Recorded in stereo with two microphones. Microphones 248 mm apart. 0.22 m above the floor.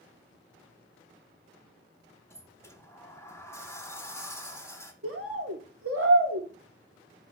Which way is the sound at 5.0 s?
65° right (ahead or behind).